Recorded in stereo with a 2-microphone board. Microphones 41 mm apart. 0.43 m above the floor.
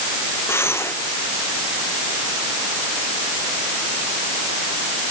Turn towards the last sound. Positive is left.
turn(degrees=85)